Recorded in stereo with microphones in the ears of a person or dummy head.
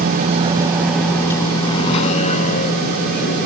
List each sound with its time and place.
0.0 s a vehicle: 45° right (ahead or behind); by 3.5 s 55° left (ahead or behind)